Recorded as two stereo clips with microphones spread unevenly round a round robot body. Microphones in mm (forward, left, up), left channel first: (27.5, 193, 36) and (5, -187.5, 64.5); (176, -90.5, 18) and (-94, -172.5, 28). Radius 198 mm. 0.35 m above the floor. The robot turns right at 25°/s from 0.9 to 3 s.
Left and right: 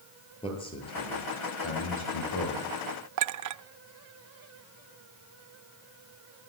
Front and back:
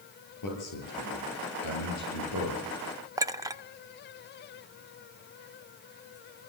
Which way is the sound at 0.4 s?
10° left.